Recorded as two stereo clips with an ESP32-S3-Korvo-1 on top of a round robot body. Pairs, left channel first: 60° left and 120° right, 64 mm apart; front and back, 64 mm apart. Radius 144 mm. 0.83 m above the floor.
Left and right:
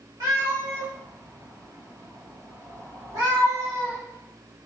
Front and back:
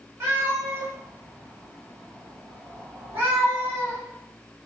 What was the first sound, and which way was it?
A cat meowing, 130° right.